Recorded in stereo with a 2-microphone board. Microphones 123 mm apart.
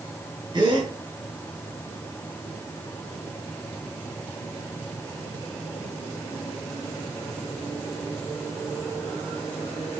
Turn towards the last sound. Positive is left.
turn(degrees=-40)  # may be behind; listen again after turning